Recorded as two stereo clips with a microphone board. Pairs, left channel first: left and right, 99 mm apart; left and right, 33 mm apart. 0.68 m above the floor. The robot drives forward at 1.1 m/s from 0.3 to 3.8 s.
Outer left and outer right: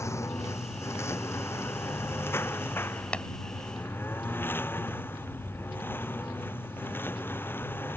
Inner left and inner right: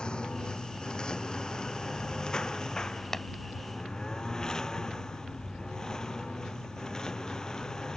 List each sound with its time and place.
0.0 s a lawn mower: 30° left (ahead or behind); by 8.0 s 20° left (ahead or behind)
3.1 s tapping: 10° left (ahead or behind)